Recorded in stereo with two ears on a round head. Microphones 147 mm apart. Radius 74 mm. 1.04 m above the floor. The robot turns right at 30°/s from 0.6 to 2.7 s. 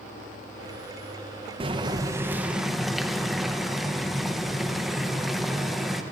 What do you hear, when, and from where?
1.6 s boiling: 35° right, 0.5 m; by 6.0 s straight ahead, 0.5 m